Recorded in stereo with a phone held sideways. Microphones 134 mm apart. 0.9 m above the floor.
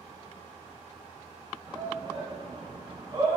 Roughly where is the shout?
Right.